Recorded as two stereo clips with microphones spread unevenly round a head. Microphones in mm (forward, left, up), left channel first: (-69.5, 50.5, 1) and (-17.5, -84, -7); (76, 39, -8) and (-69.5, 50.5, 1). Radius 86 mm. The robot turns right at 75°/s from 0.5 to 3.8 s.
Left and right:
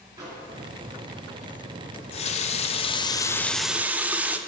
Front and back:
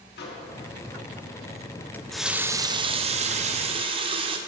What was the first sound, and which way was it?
A microwave, straight ahead.